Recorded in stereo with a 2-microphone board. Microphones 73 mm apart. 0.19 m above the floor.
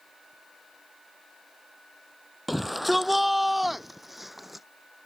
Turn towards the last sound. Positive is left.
turn(degrees=-5)  # may be behind; listen again after turning